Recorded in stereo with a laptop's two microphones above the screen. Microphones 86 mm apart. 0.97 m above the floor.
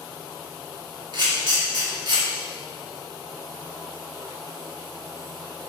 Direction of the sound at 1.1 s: 60° right (ahead or behind).